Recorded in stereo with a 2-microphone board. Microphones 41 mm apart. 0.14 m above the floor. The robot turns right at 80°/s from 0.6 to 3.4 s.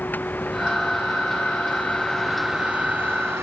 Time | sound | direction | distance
0.0 | a vehicle | 45° left (ahead or behind) | ?